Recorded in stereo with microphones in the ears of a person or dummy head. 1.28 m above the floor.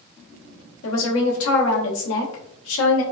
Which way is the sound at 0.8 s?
80° left.